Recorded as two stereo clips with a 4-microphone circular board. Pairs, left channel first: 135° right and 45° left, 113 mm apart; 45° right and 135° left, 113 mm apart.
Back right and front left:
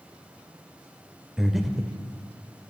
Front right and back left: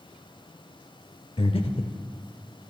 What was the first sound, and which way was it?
Breathing, 45° right.